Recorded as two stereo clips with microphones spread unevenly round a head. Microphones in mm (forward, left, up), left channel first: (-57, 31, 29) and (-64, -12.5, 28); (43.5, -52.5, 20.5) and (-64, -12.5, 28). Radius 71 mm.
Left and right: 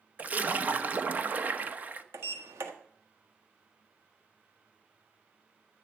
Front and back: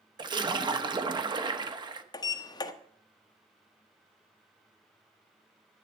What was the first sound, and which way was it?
A splash, 150° right.